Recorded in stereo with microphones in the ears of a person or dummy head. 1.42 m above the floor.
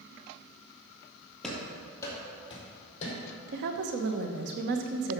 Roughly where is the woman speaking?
Right.